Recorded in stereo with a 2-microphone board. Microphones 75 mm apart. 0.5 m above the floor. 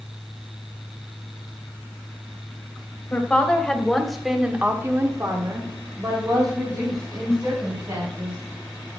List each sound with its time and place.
3.1 s a woman speaking: 20° left (ahead or behind), 3 m; by 8.4 s 45° right (ahead or behind), 5.5 m